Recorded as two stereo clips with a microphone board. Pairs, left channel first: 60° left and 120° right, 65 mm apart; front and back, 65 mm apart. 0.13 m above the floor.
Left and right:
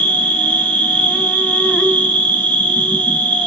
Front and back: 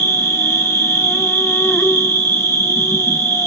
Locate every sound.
0.0 s an insect: straight ahead, 0.9 m